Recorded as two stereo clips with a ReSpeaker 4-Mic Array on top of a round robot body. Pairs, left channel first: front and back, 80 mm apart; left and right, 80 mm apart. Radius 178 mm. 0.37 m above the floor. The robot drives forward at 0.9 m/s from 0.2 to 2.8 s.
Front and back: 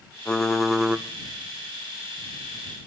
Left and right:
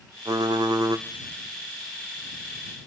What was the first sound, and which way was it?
Typing on a keyboard, 75° right.